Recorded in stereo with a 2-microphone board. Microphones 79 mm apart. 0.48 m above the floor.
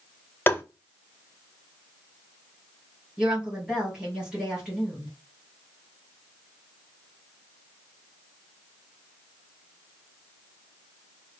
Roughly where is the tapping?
Left.